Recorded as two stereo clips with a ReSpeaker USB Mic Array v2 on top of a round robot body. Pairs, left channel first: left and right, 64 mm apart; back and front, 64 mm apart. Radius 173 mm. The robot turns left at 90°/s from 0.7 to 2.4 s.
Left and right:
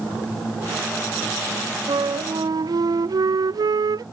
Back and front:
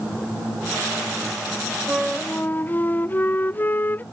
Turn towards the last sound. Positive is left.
turn(degrees=-115)